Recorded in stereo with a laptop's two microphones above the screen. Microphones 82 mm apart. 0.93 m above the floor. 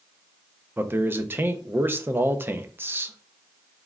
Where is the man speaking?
25° right (ahead or behind), 0.6 m.